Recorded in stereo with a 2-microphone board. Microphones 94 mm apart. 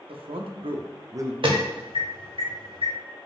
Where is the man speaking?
70° right (ahead or behind), 0.7 m; by 1.3 s 30° right (ahead or behind), 0.6 m.